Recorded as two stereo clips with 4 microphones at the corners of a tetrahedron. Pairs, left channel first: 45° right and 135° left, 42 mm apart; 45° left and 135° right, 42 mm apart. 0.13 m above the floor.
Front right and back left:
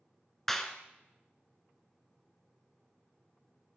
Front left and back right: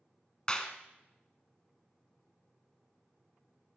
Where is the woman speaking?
I don't hear a woman speaking.